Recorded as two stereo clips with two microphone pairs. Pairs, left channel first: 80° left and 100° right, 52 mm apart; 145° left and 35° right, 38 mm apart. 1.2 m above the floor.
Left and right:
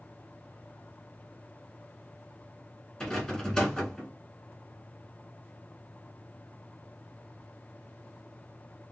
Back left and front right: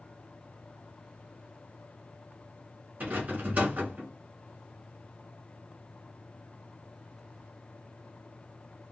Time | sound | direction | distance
3.0 | a rattle | 10° left | 1.2 m